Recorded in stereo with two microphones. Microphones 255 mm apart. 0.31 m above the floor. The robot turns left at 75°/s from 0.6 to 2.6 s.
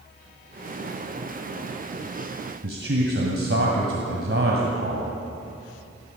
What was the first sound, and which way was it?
A man speaking, 50° right (ahead or behind).